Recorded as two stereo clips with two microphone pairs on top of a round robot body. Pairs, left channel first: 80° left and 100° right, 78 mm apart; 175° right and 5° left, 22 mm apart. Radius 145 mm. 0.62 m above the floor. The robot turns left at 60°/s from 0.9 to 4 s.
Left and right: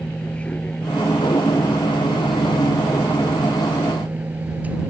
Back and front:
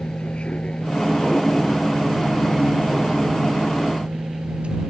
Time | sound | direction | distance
0.0 | a vehicle | 155° left | ?